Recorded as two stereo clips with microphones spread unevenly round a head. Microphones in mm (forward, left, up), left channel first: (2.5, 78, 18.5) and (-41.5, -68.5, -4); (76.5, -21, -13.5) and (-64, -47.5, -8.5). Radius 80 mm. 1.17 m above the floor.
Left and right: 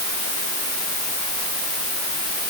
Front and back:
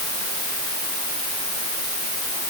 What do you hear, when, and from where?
Only background noise.